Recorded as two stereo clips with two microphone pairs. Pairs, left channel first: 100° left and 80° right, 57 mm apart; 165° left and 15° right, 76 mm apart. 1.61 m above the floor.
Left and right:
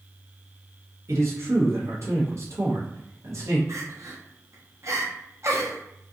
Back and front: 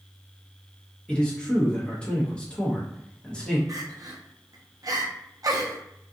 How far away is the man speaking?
About 0.8 m.